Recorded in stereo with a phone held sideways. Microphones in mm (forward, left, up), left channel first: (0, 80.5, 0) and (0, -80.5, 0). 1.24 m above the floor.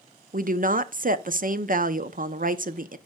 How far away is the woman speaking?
About 0.5 m.